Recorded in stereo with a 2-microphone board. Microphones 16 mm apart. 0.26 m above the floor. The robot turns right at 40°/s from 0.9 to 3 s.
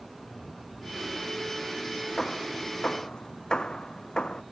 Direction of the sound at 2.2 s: 30° left (ahead or behind).